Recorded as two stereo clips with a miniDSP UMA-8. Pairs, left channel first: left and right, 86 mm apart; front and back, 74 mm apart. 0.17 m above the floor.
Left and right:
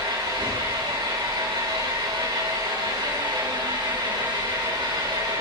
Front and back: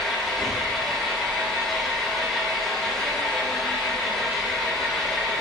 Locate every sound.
0.0 s an engine running: 85° right, 8.5 m